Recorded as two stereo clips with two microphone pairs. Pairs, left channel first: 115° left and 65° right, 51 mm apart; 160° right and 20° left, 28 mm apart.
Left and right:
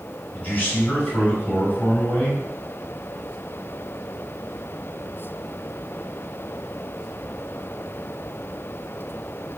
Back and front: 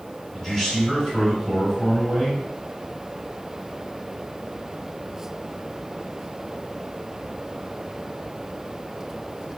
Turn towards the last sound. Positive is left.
turn(degrees=140)